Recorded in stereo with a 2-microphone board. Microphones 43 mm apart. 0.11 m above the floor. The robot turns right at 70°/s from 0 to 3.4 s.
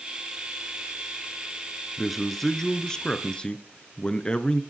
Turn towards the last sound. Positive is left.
turn(degrees=20)  # may be behind; listen again after turning